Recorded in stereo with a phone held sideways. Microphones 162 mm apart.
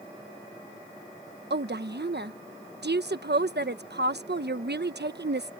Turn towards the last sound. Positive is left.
turn(degrees=-85)